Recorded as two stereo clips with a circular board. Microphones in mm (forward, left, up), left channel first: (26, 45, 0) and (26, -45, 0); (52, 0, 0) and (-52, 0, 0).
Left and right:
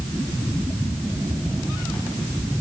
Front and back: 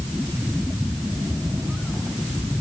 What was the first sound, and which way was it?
Only background noise.